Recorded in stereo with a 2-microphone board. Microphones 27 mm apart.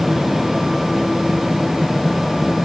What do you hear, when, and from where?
Only background noise.